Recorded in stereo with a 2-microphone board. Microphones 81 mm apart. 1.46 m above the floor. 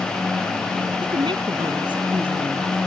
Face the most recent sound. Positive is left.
turn(degrees=-80)